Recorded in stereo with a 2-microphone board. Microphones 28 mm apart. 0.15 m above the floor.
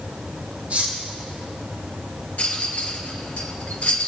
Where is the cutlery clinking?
50° right (ahead or behind), 2.5 m.